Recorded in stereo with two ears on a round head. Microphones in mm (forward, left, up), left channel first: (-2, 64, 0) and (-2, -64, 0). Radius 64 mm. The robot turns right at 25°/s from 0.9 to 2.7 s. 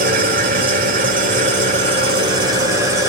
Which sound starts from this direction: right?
An engine running, at 0.0 s.